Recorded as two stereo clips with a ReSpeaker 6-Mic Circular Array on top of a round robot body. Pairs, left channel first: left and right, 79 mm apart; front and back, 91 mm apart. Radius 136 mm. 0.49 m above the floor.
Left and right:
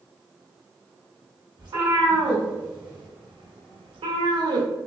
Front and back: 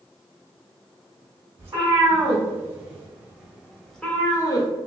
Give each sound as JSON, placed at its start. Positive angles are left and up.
{"t": 1.6, "sound": "a cat meowing", "azimuth_deg": -115, "distance_m": 1.8}